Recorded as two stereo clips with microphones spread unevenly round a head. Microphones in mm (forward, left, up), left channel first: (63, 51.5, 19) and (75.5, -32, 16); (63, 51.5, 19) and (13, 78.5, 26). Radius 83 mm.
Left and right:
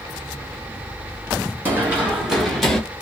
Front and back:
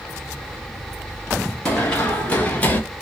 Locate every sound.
1.6 s running footsteps: 120° right, 1.0 m; by 2.8 s 20° left, 1.1 m